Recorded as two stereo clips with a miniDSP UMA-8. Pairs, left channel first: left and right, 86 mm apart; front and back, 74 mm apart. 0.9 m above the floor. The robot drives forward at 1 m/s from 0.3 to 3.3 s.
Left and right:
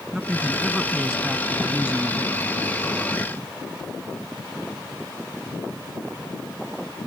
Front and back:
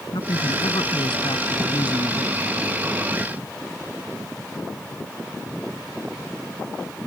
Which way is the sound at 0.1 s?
10° right.